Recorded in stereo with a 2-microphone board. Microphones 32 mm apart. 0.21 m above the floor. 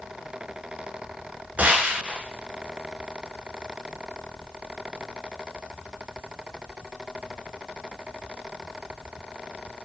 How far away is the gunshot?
About 0.6 m.